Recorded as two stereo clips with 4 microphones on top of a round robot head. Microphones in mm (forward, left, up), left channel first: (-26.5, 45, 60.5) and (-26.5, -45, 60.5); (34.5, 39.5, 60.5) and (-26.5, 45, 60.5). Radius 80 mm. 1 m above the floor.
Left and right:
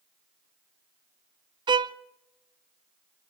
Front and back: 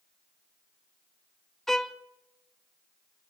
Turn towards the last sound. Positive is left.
turn(degrees=-90)